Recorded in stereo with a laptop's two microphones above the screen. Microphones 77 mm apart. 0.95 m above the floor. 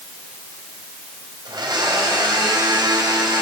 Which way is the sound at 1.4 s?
65° right (ahead or behind).